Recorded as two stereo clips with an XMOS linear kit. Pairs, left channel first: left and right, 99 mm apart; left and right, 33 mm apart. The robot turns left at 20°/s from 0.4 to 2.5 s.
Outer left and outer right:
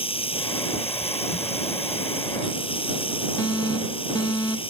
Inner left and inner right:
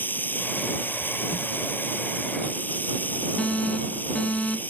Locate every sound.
0.0 s running water: 110° left; by 4.7 s 70° left
3.4 s an alarm: 45° left (ahead or behind)